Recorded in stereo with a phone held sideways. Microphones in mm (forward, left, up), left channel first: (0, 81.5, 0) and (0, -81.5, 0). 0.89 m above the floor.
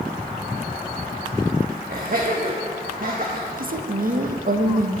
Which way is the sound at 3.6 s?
60° right (ahead or behind).